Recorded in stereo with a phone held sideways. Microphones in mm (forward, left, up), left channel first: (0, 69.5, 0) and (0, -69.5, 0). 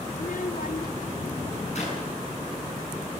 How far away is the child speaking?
About 0.6 m.